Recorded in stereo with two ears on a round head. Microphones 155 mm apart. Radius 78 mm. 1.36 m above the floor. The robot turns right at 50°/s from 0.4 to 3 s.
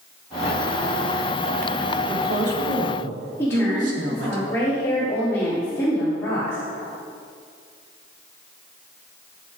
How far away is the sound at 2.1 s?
About 3.5 m.